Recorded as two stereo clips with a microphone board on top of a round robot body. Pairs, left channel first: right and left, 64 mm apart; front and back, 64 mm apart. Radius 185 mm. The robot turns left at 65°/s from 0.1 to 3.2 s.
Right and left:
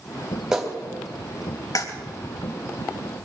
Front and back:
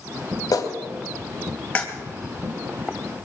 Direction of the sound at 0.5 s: 10° left.